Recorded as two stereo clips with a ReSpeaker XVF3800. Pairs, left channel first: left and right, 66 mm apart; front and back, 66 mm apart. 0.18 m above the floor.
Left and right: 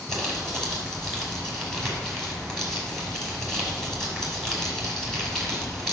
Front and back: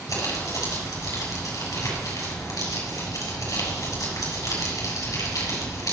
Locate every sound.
0.1 s crumpling: 5° left, 5 m